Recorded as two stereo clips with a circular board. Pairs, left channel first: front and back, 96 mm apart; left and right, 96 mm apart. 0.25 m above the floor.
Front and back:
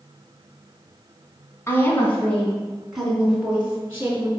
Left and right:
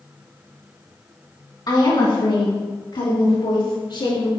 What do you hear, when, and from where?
1.7 s a woman speaking: 55° left, 2.5 m; by 4.3 s 115° left, 3.5 m